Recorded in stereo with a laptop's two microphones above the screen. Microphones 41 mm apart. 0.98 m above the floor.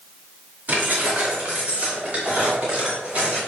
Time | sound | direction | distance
0.7 | keys jangling | 50° right (ahead or behind) | 2.5 m